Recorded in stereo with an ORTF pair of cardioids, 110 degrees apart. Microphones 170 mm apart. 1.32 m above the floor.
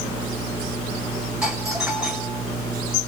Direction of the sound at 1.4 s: 5° right.